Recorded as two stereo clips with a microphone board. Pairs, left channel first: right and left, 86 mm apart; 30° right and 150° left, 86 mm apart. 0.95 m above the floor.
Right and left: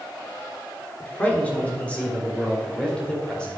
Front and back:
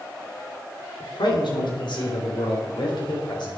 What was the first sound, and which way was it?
A man speaking, 20° right.